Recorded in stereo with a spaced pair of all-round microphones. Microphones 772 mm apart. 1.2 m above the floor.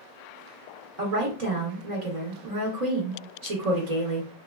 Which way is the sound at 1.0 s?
55° right (ahead or behind).